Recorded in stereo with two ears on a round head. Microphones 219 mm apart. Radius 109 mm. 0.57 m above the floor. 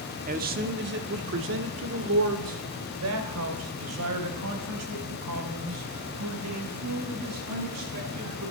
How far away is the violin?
No violin in this recording.